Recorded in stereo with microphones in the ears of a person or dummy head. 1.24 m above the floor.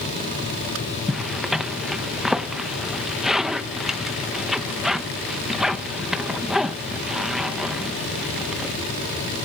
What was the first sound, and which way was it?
A zipper, centre (ahead or behind).